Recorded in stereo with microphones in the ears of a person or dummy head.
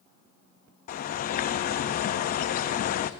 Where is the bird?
45° left (ahead or behind), 0.6 m.